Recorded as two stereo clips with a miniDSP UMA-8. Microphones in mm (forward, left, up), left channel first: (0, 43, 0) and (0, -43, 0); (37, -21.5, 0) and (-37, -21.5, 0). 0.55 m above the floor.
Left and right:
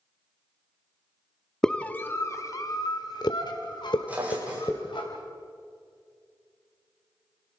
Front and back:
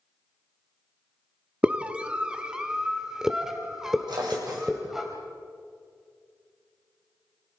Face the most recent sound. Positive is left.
turn(degrees=-165)